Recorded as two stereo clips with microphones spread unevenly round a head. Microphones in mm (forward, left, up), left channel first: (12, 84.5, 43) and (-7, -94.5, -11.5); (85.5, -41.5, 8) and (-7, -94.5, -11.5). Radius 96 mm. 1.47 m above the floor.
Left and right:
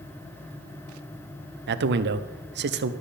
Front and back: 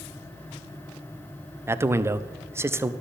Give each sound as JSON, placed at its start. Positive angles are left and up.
{"t": 1.7, "sound": "a man speaking", "azimuth_deg": -85, "distance_m": 0.6}